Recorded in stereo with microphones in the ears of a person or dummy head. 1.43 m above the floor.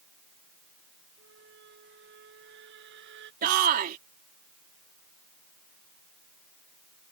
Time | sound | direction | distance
1.2 | a squeak | 65° right (ahead or behind) | ?
3.4 | a shout | 50° right (ahead or behind) | ?